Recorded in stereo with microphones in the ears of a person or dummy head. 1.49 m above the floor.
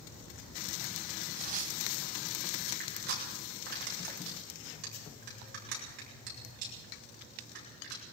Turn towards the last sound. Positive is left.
turn(degrees=-55)  # may be behind; listen again after turning